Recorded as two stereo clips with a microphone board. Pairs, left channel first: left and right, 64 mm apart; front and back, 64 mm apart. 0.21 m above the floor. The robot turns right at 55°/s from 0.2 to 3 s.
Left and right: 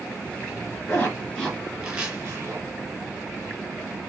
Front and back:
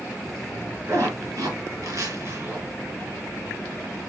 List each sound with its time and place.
0.9 s a zipper: 140° left, 3 m; by 2.6 s 125° right, 3 m